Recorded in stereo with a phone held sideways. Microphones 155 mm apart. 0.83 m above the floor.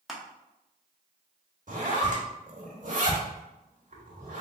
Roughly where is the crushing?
Centre.